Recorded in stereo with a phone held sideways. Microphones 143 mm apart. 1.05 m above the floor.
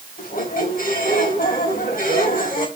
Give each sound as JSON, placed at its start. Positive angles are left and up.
{"t": 0.2, "sound": "a squeak", "side_deg": 85, "distance_m": 3.5}